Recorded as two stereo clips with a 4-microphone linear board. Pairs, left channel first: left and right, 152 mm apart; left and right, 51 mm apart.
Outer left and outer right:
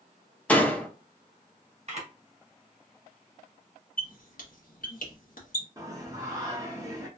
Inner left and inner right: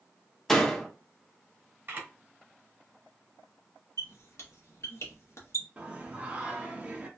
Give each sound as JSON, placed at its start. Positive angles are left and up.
{"t": 0.5, "sound": "a door slam", "side_deg": 10, "distance_m": 0.5}
{"t": 1.9, "sound": "a camera shutter", "side_deg": -45, "distance_m": 1.0}
{"t": 4.0, "sound": "a squeak", "side_deg": 65, "distance_m": 0.8}
{"t": 5.8, "sound": "singing", "side_deg": -25, "distance_m": 0.7}